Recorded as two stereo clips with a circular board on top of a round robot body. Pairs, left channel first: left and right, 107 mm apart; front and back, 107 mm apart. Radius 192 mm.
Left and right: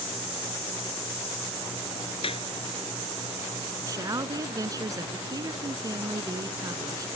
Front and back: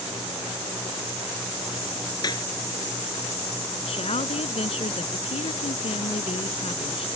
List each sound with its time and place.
2.2 s a clap: 55° left
3.9 s a woman speaking: 30° right